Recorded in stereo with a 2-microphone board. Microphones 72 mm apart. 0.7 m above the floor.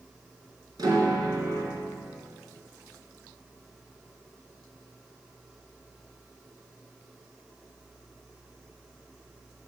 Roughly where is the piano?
Right.